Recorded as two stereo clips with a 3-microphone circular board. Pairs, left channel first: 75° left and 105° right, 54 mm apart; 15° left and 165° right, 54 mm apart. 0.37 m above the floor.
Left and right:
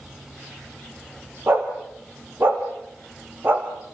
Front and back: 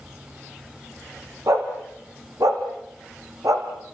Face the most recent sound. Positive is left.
turn(degrees=-155)